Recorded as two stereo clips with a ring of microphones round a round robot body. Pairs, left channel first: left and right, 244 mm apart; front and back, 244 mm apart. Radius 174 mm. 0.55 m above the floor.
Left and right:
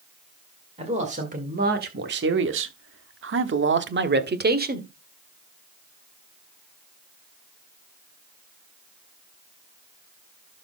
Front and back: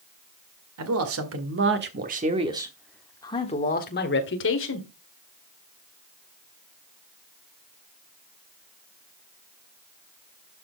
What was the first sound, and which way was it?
A man speaking, 160° right.